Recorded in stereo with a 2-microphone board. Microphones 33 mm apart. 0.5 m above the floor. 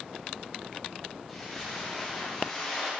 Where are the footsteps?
5° left (ahead or behind), 6.5 m; by 2.9 s 10° left (ahead or behind), 7.5 m.